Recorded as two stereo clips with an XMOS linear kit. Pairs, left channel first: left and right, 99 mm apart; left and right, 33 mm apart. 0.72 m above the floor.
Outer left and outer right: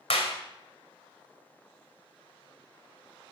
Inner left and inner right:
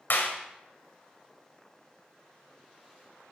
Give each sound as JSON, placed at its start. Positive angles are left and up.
{"t": 0.1, "sound": "a clap", "side_deg": 80, "distance_m": 2.0}